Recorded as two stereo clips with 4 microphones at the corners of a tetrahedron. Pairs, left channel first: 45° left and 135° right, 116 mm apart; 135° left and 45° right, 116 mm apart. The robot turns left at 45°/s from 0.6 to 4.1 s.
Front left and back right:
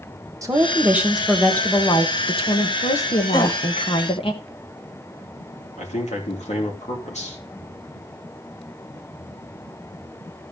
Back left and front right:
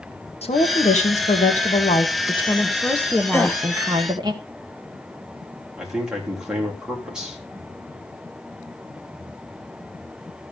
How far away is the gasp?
About 0.9 m.